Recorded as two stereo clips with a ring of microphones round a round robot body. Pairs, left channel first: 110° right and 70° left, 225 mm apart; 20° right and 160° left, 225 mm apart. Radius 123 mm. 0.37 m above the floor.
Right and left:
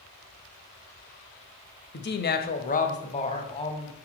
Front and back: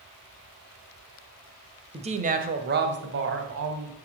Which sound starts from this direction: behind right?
A woman speaking, at 1.9 s.